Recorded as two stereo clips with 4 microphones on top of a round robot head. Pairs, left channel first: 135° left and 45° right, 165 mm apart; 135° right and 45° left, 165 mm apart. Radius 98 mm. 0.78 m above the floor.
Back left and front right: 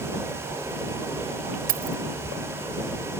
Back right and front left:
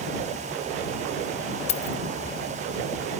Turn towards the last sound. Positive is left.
turn(degrees=-85)